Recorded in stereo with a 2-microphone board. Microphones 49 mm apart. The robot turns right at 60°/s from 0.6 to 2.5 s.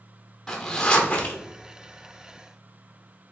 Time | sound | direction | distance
0.5 | a zipper | 15° left | 0.9 m